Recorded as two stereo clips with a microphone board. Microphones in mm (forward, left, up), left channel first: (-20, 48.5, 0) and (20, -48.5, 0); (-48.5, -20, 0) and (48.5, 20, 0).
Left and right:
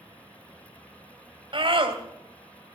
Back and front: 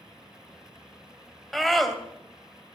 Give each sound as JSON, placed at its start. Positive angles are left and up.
{"t": 1.5, "sound": "a scream", "azimuth_deg": -70, "distance_m": 2.5}